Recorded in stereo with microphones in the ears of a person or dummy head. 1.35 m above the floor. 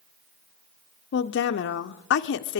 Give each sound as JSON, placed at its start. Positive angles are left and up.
{"t": 1.1, "sound": "a woman speaking", "side_deg": 60, "distance_m": 0.6}